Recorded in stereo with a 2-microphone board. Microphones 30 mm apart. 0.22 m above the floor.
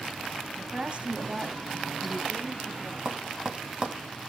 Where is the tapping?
35° right (ahead or behind), 1.2 m.